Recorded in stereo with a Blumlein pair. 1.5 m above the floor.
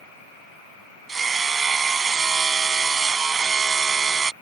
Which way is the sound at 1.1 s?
15° right.